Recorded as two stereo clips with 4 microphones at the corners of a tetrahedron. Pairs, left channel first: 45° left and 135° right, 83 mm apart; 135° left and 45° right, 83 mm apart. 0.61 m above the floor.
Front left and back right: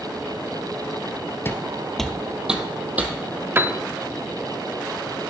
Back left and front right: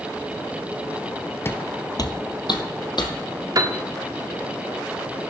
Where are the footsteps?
90° left, 0.7 m; by 3.1 s 155° left, 1.6 m.